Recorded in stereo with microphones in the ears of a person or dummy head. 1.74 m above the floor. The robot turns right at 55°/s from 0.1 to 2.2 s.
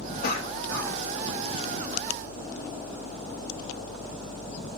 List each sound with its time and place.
0.2 s a cough: 55° left (ahead or behind), 1.6 m; by 1.5 s 10° right (ahead or behind), 1.6 m